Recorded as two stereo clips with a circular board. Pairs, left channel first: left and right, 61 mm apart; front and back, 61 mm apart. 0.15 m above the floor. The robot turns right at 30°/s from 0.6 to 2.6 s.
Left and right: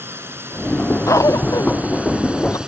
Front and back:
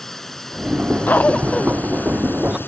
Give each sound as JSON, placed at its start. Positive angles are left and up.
{"t": 0.0, "sound": "a drone", "azimuth_deg": -80}
{"t": 1.1, "sound": "a cough", "azimuth_deg": 60}